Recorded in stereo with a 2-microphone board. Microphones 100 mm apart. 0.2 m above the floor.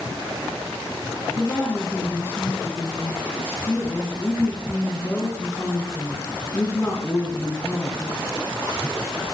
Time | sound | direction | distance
1.4 | a woman speaking | 25° left (ahead or behind) | 2 m